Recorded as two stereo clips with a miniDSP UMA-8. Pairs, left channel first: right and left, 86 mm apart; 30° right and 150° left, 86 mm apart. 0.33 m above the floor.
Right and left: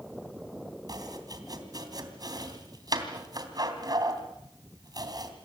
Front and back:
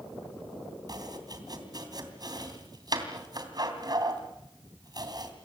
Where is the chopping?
120° left, 3 m.